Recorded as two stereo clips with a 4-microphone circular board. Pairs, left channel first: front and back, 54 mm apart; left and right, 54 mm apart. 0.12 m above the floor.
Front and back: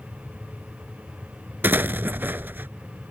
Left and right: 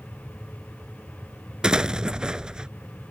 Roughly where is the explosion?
Behind right.